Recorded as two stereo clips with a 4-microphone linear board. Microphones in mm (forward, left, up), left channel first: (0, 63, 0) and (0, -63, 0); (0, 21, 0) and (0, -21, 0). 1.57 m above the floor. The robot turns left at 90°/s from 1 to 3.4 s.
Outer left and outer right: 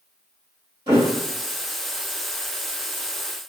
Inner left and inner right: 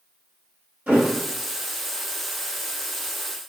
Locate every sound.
0.9 s a thud: 40° right (ahead or behind), 1.4 m; by 1.1 s 35° right (ahead or behind), 1.4 m